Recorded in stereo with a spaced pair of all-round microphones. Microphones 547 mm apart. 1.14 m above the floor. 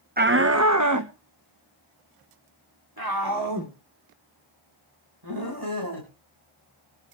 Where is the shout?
20° right (ahead or behind), 0.5 m; by 6.1 s 40° right (ahead or behind), 5 m.